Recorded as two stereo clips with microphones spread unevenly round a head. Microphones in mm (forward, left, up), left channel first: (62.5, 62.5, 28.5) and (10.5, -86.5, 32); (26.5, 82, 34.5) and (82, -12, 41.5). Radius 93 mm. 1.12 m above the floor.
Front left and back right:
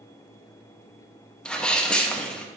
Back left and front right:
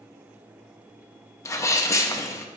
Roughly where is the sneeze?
Behind left.